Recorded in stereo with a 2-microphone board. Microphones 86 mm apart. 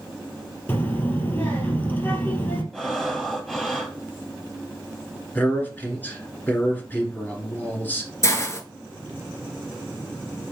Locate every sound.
0.7 s a child speaking: 25° left (ahead or behind), 2 m
2.7 s breathing: 5° left (ahead or behind), 1.1 m
5.3 s a man speaking: 20° left (ahead or behind), 1.5 m
8.2 s a hiss: 35° left (ahead or behind), 0.9 m